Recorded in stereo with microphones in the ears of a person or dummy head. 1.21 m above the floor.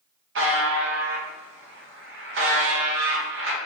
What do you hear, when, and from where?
0.3 s a buzzer: 55° right (ahead or behind), 0.8 m